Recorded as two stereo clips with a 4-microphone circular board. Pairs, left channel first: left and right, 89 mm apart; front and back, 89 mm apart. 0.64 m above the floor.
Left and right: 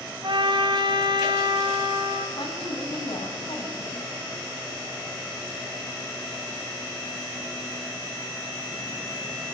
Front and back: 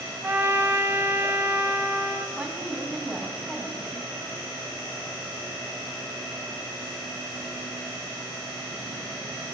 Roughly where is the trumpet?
Behind right.